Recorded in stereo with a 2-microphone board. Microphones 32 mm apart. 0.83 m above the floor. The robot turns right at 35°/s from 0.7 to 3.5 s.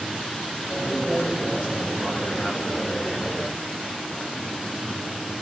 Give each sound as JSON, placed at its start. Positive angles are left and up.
{"t": 0.8, "sound": "a man speaking", "azimuth_deg": 80, "distance_m": 5.5}